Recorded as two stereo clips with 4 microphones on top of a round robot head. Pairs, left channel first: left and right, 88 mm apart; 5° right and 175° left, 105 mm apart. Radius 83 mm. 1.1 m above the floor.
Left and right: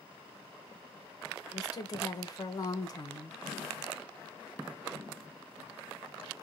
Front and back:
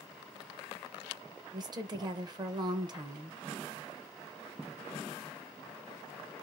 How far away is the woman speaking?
About 0.9 m.